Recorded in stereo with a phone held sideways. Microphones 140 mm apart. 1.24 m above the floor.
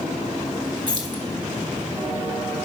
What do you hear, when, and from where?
0.9 s keys jangling: 35° right (ahead or behind), 1.3 m